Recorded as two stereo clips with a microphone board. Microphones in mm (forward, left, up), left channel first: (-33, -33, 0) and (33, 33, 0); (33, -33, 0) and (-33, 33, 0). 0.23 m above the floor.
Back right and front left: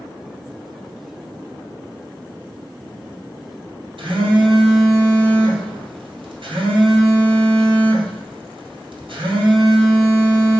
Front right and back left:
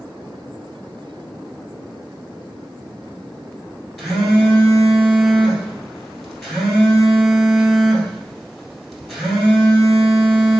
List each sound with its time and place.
4.0 s a phone buzzing: 45° left, 1.6 m